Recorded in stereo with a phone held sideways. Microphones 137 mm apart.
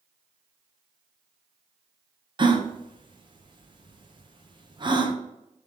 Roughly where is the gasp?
Right.